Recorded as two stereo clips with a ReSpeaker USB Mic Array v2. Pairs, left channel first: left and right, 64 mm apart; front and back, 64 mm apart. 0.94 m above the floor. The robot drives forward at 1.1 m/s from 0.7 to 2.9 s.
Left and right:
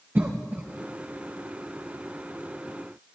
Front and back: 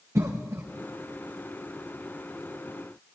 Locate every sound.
0.1 s a cough: 145° right, 0.6 m